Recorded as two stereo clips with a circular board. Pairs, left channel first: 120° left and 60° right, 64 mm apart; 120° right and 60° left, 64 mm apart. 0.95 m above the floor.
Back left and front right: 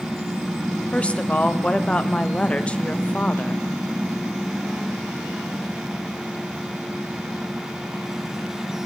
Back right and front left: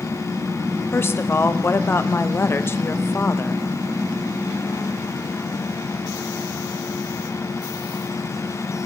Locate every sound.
0.9 s a woman speaking: 170° right, 0.5 m